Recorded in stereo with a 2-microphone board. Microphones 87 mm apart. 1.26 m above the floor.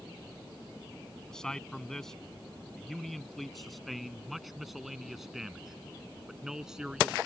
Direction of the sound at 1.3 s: 5° left (ahead or behind).